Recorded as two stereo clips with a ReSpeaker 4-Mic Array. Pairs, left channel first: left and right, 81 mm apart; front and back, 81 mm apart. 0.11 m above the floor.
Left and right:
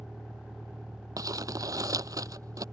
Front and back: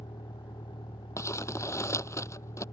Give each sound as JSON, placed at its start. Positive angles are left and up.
{"t": 0.0, "sound": "a vehicle", "azimuth_deg": 0}
{"t": 1.2, "sound": "crumpling", "azimuth_deg": -50}